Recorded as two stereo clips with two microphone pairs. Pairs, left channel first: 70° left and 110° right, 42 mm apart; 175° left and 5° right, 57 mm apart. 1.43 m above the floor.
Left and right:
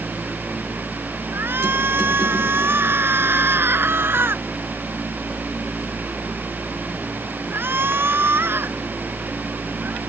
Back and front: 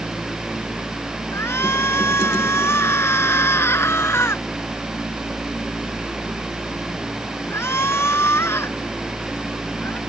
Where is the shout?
140° right.